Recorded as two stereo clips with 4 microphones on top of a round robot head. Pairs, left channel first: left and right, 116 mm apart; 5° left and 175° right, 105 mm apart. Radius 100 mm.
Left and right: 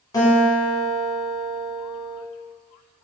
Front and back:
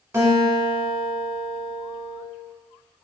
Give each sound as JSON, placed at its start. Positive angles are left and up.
{"t": 0.1, "sound": "a guitar", "azimuth_deg": 130, "distance_m": 1.1}